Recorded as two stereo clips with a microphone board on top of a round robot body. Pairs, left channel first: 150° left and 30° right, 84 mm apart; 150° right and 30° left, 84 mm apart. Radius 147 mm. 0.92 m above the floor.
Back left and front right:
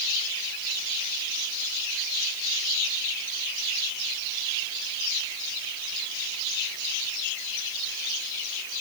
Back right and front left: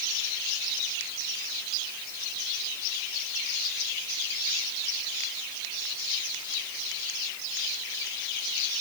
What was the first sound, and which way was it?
Only background noise.